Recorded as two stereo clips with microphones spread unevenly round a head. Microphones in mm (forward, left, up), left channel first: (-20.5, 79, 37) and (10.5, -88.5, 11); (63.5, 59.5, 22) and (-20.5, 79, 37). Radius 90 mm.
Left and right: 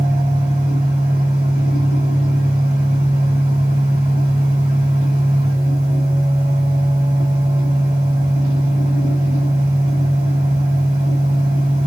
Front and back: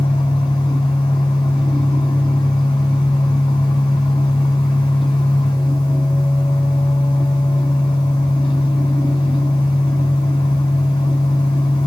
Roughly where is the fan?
Ahead.